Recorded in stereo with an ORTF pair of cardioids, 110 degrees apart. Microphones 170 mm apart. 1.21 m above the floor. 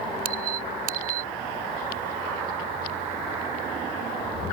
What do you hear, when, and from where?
0.2 s a squeak: 60° right